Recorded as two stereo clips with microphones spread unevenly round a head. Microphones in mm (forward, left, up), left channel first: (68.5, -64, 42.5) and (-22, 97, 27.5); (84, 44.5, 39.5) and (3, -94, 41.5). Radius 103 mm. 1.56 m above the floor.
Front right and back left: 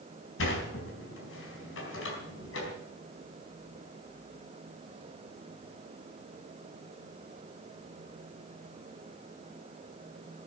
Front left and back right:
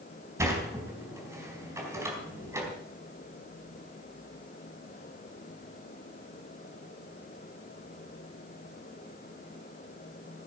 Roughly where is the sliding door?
Ahead right.